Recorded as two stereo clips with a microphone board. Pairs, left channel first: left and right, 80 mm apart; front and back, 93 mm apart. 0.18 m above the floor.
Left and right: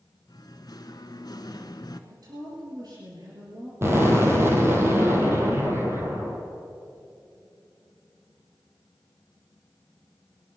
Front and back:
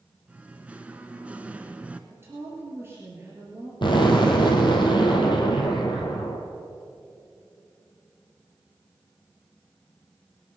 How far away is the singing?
About 0.8 m.